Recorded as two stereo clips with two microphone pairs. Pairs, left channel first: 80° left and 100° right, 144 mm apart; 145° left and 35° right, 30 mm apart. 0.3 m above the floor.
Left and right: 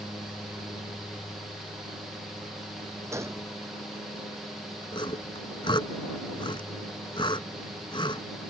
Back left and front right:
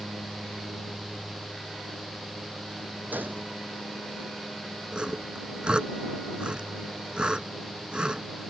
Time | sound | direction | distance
3.1 | a gunshot | 25° right | ?
4.9 | sawing | 25° left | ?